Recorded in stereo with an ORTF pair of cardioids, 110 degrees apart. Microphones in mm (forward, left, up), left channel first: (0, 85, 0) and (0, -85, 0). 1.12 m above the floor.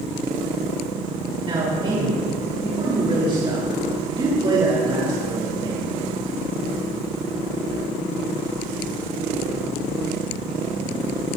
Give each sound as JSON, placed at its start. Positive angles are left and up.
{"t": 1.4, "sound": "a man speaking", "azimuth_deg": -35, "distance_m": 3.5}